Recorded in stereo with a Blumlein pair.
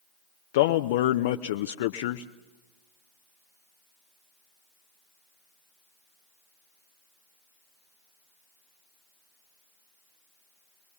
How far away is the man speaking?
About 0.7 m.